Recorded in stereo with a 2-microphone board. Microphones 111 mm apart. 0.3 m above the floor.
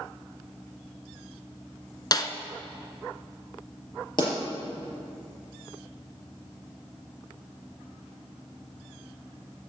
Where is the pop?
45° left (ahead or behind), 5.5 m.